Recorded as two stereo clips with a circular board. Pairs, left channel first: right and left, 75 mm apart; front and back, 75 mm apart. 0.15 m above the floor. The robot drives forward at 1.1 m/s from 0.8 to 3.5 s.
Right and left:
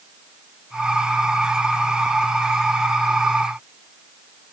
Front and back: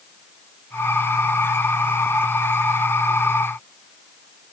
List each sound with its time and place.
Only background noise.